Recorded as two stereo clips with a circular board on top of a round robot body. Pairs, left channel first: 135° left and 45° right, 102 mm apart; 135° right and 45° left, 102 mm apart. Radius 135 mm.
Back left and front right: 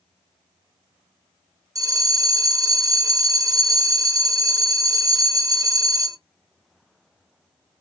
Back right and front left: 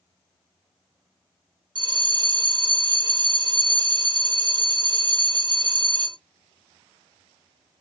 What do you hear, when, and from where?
1.8 s a bell: 5° left, 0.6 m